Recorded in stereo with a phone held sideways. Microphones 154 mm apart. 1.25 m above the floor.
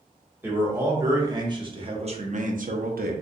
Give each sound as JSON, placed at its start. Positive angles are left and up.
{"t": 0.4, "sound": "a man speaking", "side_deg": -15, "distance_m": 1.5}